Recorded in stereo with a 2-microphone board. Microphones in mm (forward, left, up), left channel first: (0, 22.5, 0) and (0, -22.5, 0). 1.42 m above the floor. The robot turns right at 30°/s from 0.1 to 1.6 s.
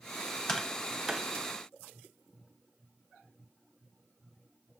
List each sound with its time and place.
0.5 s tapping: 15° left (ahead or behind), 1.1 m; by 1.3 s 10° right (ahead or behind), 1.1 m